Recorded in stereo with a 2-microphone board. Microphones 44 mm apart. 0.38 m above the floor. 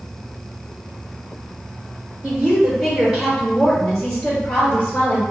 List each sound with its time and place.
2.2 s a woman speaking: 25° right (ahead or behind), 1.6 m; by 5.2 s 30° left (ahead or behind), 1.8 m